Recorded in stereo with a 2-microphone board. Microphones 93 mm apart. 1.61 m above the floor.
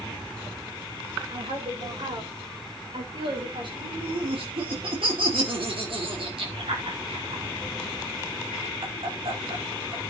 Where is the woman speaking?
65° right (ahead or behind), 7.5 m; by 3.7 s 60° right (ahead or behind), 5.5 m.